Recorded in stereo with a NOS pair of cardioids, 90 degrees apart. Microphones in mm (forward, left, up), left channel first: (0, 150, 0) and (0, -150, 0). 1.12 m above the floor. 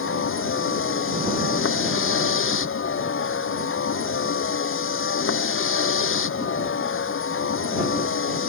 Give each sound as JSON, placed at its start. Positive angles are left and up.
{"t": 0.0, "sound": "a vehicle", "azimuth_deg": 45}